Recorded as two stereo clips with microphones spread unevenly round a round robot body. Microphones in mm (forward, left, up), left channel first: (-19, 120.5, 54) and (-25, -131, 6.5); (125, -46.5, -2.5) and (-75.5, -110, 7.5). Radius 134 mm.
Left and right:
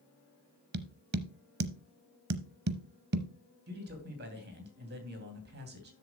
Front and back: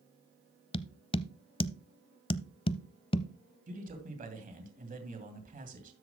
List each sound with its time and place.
0.7 s tapping: 45° right, 0.7 m
3.7 s a man speaking: 120° right, 2.5 m